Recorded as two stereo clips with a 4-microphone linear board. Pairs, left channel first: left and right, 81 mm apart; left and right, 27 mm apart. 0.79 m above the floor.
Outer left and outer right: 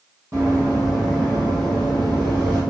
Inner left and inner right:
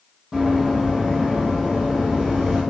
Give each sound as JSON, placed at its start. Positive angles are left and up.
{"t": 0.3, "sound": "running footsteps", "side_deg": -40, "distance_m": 1.8}